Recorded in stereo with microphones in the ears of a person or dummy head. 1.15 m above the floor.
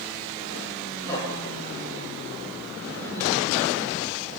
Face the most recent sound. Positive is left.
turn(degrees=10)  # may be behind; listen again after turning